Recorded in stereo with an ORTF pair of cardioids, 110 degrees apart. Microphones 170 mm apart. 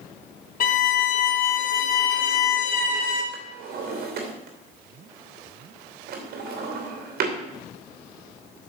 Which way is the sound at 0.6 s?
55° left.